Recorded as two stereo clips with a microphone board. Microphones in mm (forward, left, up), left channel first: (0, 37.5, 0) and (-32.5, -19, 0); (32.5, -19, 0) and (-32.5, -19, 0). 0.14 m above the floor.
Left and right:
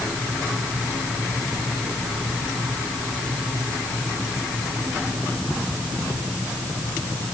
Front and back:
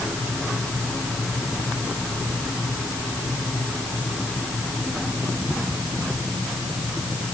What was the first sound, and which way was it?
Only background noise.